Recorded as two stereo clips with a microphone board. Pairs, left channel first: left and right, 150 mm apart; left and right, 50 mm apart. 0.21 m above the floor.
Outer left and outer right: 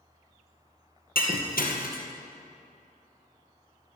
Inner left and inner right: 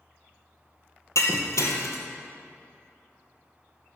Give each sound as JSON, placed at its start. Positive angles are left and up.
{"t": 1.1, "sound": "breaking glass", "side_deg": 75, "distance_m": 2.5}